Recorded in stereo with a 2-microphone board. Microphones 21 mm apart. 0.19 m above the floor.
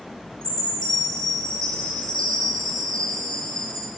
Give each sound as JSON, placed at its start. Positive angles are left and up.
{"t": 0.4, "sound": "a chime", "side_deg": 25, "distance_m": 5.0}